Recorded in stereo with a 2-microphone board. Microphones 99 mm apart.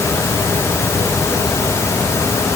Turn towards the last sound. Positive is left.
No sound to turn to.